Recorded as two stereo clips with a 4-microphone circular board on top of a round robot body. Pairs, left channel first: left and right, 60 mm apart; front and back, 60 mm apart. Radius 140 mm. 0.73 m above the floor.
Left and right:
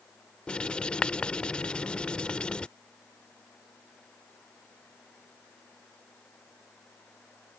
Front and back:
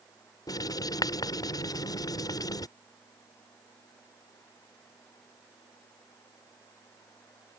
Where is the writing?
15° left.